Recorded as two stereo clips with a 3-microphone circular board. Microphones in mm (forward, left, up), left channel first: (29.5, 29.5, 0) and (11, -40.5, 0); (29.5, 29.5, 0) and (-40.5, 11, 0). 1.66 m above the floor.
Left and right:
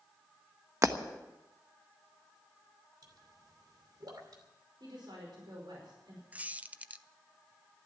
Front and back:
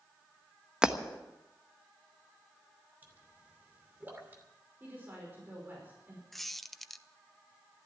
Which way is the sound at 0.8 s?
95° right.